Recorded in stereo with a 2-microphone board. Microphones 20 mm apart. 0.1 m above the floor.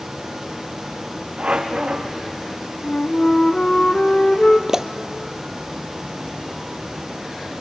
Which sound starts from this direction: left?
A flute, at 2.8 s.